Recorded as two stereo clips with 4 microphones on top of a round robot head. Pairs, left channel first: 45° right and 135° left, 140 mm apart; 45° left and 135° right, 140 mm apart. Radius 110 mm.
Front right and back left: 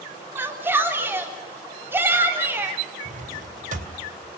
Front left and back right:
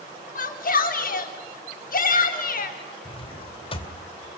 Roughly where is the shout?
Ahead left.